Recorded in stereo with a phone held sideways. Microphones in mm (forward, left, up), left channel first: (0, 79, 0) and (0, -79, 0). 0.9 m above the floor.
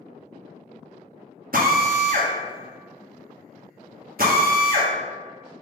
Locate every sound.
1.5 s a drill: 65° right (ahead or behind), 0.8 m